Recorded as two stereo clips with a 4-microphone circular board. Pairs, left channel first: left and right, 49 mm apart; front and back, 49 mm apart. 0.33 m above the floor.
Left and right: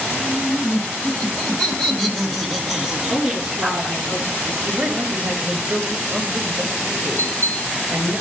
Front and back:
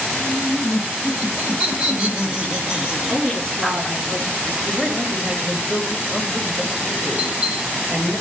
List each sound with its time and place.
0.1 s laughter: 145° left, 2.5 m; by 4.0 s 100° right, 1.6 m
3.1 s a woman speaking: 160° right, 4 m
4.6 s a man speaking: 100° right, 1.4 m
7.2 s a bell: 110° right, 3.5 m